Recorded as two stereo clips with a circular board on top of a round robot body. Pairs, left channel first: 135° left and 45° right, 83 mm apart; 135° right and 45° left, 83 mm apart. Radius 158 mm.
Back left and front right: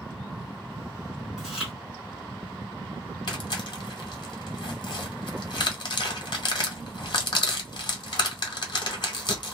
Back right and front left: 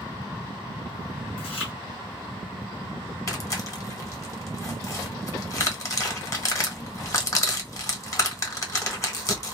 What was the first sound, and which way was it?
Chewing, 130° right.